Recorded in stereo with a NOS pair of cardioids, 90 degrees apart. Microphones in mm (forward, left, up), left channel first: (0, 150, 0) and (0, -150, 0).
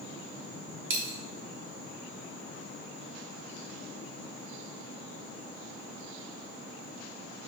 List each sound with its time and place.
0.9 s a dropped coin: 45° right, 1.7 m